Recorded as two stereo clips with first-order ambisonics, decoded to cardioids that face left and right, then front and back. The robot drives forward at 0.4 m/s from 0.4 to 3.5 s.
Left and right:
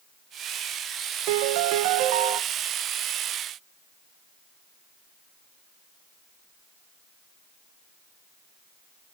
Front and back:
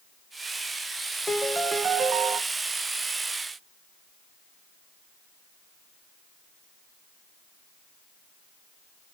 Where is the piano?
85° right, 0.6 m; by 2.4 s 125° right, 0.7 m.